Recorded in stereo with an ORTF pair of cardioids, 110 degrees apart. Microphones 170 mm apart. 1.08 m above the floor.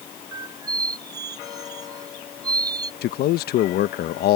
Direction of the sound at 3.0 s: 70° left.